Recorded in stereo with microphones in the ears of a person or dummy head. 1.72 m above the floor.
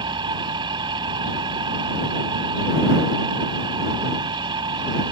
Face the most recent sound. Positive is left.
turn(degrees=-25)  # may be behind; listen again after turning